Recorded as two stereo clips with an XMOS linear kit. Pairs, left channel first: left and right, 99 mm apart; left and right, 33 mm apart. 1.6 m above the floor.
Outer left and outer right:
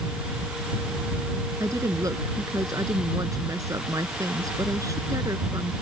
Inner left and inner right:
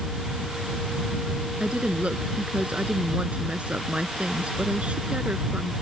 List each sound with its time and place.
1.6 s a woman speaking: 35° right (ahead or behind)